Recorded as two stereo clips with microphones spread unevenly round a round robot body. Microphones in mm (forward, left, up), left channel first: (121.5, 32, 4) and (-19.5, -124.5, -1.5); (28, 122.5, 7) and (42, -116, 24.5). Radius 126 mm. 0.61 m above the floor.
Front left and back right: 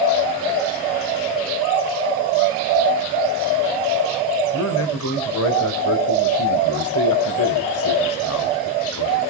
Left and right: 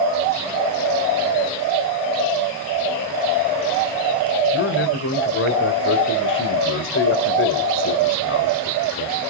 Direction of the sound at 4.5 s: 60° left.